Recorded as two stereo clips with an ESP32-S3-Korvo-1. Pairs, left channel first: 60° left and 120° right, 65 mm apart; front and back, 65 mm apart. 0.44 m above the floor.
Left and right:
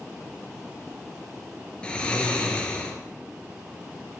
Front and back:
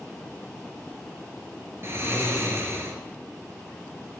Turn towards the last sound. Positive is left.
turn(degrees=135)